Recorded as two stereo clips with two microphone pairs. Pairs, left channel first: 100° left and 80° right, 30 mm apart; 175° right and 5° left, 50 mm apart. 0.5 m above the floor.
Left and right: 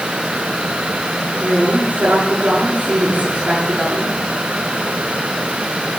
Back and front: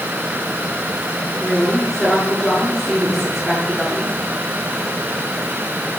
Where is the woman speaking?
90° right, 5 m.